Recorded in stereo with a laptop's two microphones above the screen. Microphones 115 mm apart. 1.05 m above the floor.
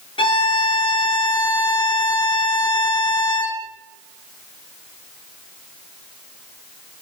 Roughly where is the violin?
Left.